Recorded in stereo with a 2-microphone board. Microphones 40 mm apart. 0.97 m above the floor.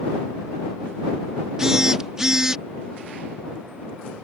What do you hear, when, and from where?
1.6 s a phone buzzing: 15° right (ahead or behind)